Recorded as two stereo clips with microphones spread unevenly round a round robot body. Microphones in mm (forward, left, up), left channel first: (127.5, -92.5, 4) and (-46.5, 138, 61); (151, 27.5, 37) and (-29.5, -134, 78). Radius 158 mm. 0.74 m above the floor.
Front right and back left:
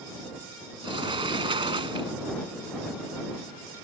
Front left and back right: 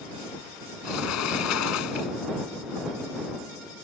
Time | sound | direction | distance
0.8 | a sliding door | 55° left | ?